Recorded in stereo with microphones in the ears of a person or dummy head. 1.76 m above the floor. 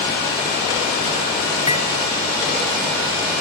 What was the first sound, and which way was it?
Cutlery clinking, 15° right (ahead or behind).